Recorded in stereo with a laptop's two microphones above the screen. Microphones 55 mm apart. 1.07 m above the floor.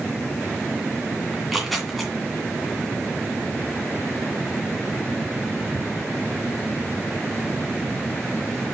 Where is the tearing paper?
Centre (ahead or behind), 2 m.